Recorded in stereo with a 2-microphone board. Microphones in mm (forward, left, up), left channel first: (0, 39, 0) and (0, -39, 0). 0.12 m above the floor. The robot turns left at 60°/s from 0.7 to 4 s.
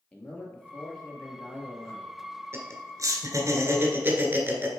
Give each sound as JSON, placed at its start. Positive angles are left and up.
{"t": 0.1, "sound": "a man speaking", "azimuth_deg": 20, "distance_m": 1.9}
{"t": 2.5, "sound": "laughter", "side_deg": -35, "distance_m": 1.6}